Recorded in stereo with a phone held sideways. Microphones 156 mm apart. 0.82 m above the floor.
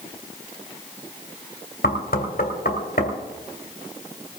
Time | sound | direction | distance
1.8 | knocking | 75° left (ahead or behind) | 2 m